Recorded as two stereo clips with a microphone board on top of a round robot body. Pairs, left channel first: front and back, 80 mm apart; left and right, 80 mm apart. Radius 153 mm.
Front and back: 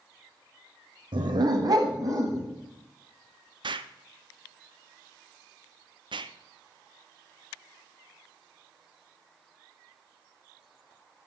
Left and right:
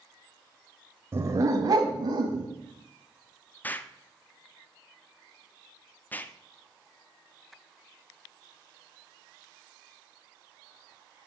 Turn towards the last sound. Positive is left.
turn(degrees=160)